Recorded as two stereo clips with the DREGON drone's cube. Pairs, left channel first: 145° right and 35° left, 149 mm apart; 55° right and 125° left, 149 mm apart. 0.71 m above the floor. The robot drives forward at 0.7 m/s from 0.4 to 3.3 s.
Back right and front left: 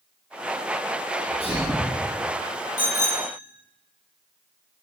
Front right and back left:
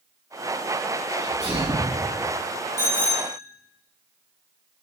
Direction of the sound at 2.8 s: 130° right.